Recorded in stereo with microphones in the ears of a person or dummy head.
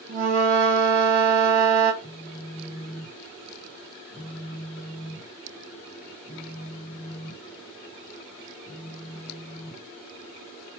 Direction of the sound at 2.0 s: 15° left (ahead or behind).